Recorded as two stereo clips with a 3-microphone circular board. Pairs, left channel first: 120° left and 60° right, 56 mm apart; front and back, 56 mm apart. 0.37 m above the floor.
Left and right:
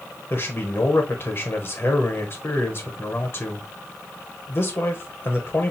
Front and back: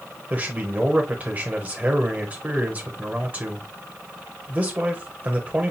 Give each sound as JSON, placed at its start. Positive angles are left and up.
{"t": 0.3, "sound": "a man speaking", "azimuth_deg": 135, "distance_m": 1.1}